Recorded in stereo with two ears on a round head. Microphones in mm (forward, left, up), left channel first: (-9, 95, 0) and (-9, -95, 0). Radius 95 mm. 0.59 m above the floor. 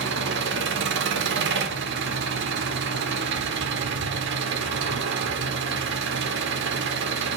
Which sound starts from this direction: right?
An engine running, at 0.0 s.